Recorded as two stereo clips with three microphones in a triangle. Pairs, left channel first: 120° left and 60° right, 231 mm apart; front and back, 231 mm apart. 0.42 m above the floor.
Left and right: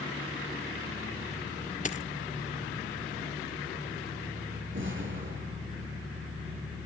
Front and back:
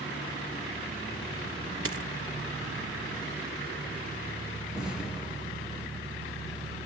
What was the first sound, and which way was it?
A dropped coin, 175° left.